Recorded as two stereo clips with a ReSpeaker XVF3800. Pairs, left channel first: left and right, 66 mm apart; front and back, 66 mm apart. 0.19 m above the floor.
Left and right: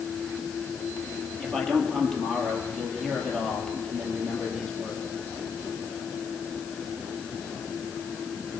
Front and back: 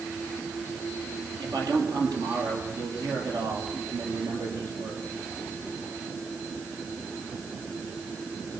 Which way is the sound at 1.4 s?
175° left.